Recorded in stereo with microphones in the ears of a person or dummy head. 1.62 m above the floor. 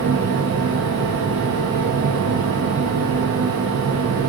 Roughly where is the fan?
Right.